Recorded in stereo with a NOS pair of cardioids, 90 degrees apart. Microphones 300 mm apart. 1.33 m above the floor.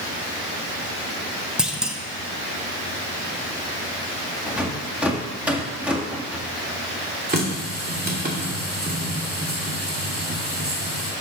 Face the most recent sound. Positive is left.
turn(degrees=-30)